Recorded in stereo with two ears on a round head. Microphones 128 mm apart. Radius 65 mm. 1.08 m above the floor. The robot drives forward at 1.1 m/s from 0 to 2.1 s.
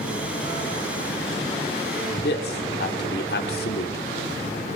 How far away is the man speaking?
About 2.5 m.